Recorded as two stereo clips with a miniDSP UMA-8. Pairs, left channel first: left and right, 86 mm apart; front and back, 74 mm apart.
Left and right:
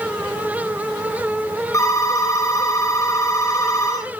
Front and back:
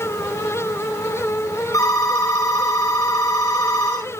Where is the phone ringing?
40° left, 3.5 m.